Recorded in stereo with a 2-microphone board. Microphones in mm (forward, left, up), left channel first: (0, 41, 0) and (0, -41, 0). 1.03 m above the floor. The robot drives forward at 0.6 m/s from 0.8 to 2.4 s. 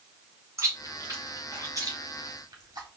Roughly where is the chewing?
Right.